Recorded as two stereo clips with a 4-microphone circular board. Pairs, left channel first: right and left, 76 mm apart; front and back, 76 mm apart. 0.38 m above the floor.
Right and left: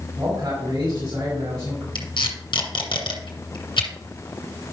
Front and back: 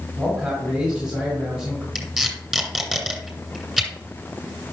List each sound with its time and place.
0.2 s a man speaking: 100° left, 3 m
1.9 s tape being pulled: 90° right, 2.5 m